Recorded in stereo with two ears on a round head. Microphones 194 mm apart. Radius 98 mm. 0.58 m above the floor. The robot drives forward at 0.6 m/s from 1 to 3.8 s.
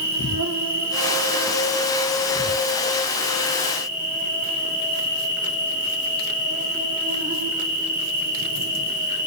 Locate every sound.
0.0 s an insect: 70° right (ahead or behind), 2.0 m; by 9.3 s 40° right (ahead or behind), 3 m